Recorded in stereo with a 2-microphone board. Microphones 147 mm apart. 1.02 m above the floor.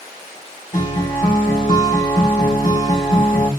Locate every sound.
0.7 s a guitar: 60° left (ahead or behind), 1.2 m